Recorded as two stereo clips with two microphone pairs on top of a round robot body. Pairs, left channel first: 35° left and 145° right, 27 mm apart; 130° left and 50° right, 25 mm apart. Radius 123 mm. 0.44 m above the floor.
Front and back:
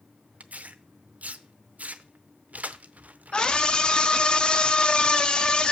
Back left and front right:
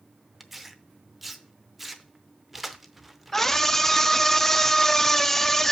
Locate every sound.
0.4 s tearing paper: 135° right, 0.7 m
3.3 s a scream: 75° left, 0.8 m